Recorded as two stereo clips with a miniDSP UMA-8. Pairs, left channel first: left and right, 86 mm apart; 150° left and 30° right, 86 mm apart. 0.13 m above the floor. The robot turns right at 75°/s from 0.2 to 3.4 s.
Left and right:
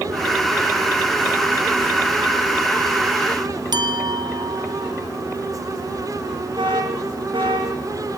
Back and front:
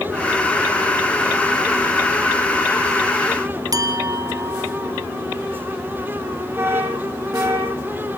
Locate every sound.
3.7 s a clink: 70° right, 2.5 m
6.6 s an alarm: 90° right, 7.5 m